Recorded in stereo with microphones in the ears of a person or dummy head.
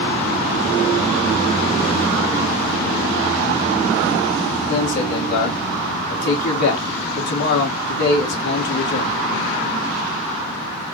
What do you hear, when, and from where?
4.7 s a man speaking: 65° left (ahead or behind), 2.5 m